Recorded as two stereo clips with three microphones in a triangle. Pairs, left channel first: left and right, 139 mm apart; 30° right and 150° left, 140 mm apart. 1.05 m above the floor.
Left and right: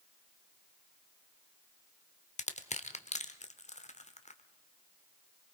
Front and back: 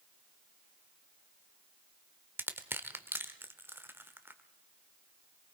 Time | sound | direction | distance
2.4 | crushing | 80° left | 1.0 m